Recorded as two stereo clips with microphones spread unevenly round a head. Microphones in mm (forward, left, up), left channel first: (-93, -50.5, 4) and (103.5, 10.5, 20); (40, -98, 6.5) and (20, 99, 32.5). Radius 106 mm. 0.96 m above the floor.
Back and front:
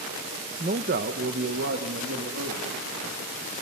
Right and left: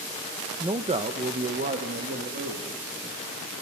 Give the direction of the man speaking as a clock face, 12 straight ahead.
11 o'clock.